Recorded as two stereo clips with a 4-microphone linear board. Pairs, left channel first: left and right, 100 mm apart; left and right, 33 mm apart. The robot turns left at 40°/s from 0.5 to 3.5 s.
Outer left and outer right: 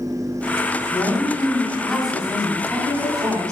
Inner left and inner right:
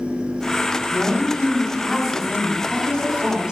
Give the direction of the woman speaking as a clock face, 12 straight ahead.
10 o'clock.